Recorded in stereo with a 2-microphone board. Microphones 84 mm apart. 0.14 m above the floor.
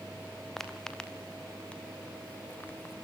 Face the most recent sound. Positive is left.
turn(degrees=25)  # may be behind; listen again after turning